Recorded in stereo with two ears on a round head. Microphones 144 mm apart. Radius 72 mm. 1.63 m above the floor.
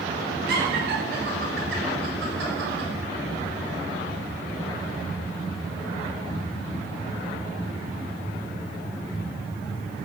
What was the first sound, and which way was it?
Laughter, 65° right (ahead or behind).